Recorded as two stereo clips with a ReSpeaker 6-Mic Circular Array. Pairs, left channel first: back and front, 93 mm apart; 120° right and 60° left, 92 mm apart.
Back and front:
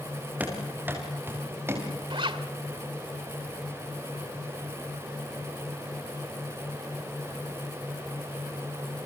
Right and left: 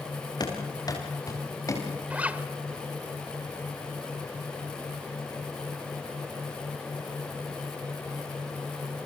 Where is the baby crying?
I don't hear a baby crying.